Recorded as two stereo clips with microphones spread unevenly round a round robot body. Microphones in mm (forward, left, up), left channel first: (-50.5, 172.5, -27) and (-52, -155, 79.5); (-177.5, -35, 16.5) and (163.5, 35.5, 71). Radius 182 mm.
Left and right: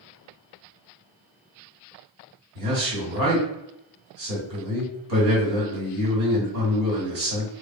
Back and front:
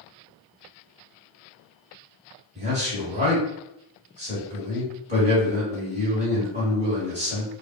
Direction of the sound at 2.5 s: 60° right.